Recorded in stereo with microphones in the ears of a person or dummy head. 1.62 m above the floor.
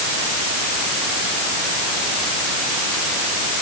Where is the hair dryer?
I don't hear a hair dryer.